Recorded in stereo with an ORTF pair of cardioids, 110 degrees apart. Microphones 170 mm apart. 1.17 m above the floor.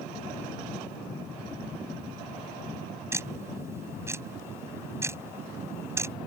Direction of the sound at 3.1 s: 15° right.